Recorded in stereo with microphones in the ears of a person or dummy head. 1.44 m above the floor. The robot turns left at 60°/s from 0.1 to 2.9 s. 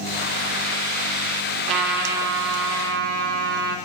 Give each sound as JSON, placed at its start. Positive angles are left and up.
{"t": 1.7, "sound": "a trumpet", "azimuth_deg": -50, "distance_m": 2.0}